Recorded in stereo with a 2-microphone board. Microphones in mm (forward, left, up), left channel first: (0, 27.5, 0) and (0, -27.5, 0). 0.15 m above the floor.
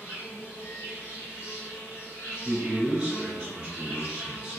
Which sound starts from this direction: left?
An insect, at 0.0 s.